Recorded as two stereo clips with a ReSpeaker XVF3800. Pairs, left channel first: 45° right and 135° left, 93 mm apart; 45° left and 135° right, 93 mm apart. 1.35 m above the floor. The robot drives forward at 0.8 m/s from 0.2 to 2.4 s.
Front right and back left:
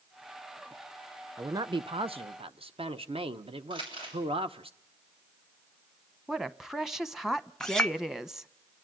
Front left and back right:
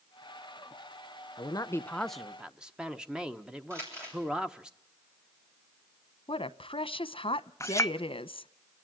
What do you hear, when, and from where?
1.4 s a man speaking: 75° left, 0.5 m; by 4.7 s 145° left, 0.8 m
3.7 s crumpling: 165° left, 7.5 m
6.3 s a woman speaking: 50° left, 0.7 m
7.6 s a clink: 30° left, 0.6 m